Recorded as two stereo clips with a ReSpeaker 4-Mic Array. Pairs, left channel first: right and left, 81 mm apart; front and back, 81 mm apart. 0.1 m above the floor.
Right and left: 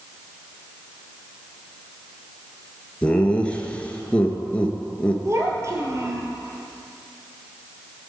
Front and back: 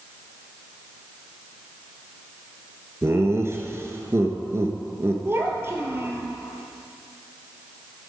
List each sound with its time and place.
3.0 s laughter: 155° right, 1.3 m
5.2 s a child speaking: 130° left, 1.5 m